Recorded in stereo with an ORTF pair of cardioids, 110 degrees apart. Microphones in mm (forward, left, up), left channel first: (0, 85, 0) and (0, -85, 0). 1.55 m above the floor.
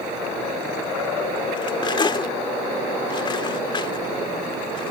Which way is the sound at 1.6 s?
30° left.